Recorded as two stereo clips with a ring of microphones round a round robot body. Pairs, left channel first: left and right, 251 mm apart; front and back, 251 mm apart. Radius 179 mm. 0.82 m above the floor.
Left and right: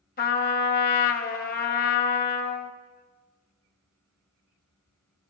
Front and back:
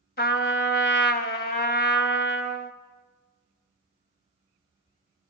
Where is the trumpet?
40° left, 1.2 m.